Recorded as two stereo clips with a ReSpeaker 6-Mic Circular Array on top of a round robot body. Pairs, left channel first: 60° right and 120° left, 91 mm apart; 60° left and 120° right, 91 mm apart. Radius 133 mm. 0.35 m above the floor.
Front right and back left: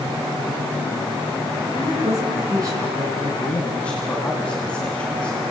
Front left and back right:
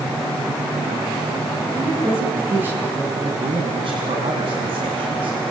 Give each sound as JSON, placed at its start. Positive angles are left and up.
{"t": 1.7, "sound": "a woman speaking", "azimuth_deg": 170, "distance_m": 7.5}
{"t": 3.4, "sound": "a man speaking", "azimuth_deg": -140, "distance_m": 3.5}